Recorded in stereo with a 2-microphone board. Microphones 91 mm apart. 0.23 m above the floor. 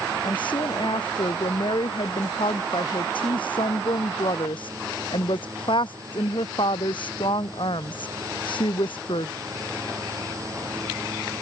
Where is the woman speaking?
65° left (ahead or behind).